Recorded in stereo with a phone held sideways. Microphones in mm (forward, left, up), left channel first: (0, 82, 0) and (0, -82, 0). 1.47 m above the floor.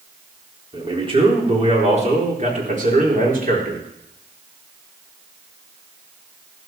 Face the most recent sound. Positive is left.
turn(degrees=-65)  # may be behind; listen again after turning